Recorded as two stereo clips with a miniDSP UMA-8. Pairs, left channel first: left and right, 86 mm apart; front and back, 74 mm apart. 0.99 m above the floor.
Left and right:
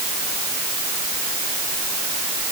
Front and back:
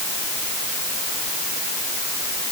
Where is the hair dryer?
No hair dryer in this recording.